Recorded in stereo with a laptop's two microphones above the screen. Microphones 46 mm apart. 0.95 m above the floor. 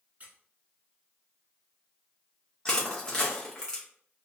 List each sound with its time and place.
0.2 s a squeak: 35° right (ahead or behind), 0.6 m
2.6 s crushing: 20° left (ahead or behind), 0.7 m